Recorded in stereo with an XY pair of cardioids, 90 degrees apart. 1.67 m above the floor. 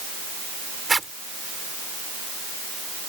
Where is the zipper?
25° right.